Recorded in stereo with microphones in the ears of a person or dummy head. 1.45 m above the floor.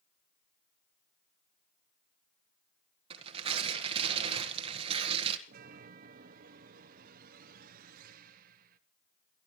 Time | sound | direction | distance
3.1 | tearing paper | 30° right (ahead or behind) | 1.5 m
5.5 | a chime | 50° right (ahead or behind) | 1.0 m